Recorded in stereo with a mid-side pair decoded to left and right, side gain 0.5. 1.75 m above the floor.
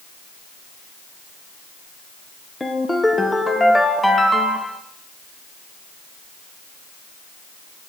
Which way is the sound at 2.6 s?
15° left.